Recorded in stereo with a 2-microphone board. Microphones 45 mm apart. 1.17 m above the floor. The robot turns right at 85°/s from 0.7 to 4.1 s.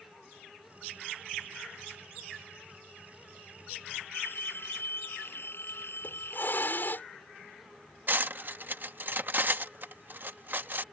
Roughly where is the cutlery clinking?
Right.